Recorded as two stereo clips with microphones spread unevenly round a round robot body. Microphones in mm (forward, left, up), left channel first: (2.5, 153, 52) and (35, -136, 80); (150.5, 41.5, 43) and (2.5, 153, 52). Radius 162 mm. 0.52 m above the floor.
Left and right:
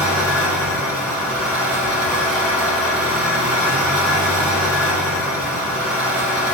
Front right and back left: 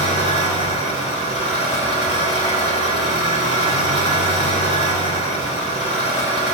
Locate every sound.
0.0 s an engine running: 175° right, 3 m